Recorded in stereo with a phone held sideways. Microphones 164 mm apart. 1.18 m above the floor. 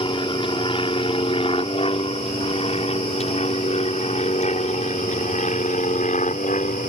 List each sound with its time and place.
0.0 s an aircraft: 30° left (ahead or behind); by 6.9 s 50° left (ahead or behind)